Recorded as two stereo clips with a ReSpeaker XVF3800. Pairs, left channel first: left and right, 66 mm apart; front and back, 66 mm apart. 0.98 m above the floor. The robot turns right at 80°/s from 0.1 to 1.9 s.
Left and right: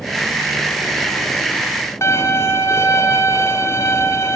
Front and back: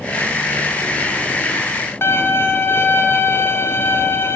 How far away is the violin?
About 2.0 m.